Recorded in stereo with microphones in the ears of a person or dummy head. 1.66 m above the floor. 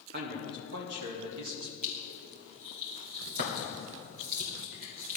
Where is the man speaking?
50° right (ahead or behind), 2.5 m; by 1.7 s 65° right (ahead or behind), 1.9 m.